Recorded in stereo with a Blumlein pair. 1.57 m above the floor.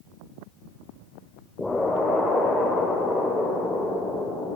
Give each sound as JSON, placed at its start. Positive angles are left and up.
{"t": 1.6, "sound": "an explosion", "azimuth_deg": 5, "distance_m": 4.0}